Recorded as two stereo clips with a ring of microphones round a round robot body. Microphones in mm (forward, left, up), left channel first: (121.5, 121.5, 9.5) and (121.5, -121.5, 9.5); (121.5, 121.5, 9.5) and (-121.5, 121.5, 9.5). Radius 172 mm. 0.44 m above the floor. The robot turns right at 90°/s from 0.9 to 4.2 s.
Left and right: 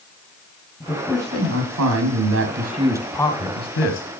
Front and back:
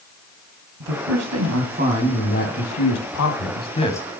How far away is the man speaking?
About 2.5 m.